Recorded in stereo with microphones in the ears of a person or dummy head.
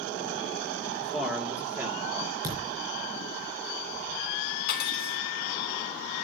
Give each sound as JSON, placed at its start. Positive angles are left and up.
{"t": 1.0, "sound": "a man speaking", "side_deg": 0, "distance_m": 2.5}
{"t": 2.4, "sound": "a thud", "side_deg": -25, "distance_m": 3.5}
{"t": 4.7, "sound": "cutlery clinking", "side_deg": 60, "distance_m": 3.0}